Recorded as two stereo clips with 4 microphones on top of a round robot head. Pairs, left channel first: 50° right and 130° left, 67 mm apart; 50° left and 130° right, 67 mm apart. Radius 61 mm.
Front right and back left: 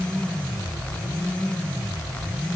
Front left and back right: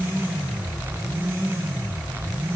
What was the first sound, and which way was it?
Only background noise.